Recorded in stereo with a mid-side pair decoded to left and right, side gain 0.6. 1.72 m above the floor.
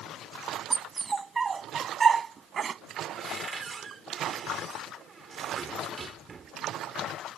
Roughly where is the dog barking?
Ahead.